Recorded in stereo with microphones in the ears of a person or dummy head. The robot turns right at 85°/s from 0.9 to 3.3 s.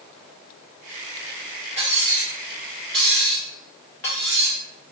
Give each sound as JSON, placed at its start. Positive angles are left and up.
{"t": 1.8, "sound": "cutlery clinking", "side_deg": -30, "distance_m": 0.8}